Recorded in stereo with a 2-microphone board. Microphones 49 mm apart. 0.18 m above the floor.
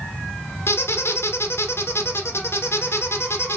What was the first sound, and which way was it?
A squeak, 60° left (ahead or behind).